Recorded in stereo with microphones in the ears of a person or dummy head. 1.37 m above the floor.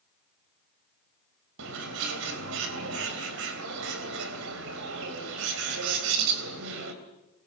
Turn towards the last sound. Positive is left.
turn(degrees=-80)